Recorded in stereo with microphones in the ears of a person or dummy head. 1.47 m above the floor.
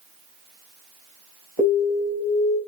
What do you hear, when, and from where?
1.6 s an alarm: 15° right (ahead or behind), 2.5 m